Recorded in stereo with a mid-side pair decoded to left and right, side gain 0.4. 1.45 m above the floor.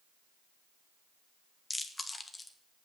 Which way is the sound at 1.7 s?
25° left.